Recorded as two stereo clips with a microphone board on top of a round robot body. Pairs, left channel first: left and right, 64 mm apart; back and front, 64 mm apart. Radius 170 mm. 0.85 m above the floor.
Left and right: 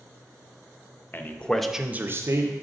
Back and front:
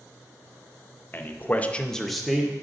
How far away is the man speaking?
About 0.9 m.